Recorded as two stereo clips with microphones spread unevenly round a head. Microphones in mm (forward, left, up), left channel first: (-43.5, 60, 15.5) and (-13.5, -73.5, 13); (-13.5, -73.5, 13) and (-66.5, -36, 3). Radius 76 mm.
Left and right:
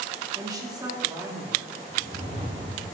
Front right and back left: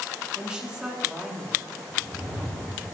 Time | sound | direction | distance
0.3 | a woman speaking | 140° right | 4 m
1.9 | a whoosh | 125° right | 7 m